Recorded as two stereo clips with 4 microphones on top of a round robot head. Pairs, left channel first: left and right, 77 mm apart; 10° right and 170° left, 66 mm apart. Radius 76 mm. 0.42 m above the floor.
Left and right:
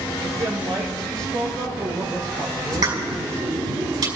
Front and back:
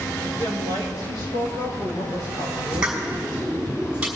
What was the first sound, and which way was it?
A woman speaking, 55° right.